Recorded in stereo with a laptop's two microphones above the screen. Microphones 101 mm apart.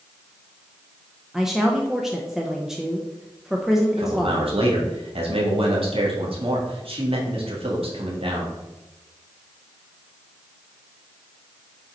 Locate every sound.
1.3 s a woman speaking: 5° right (ahead or behind), 0.6 m
4.0 s a man speaking: 70° right (ahead or behind), 1.8 m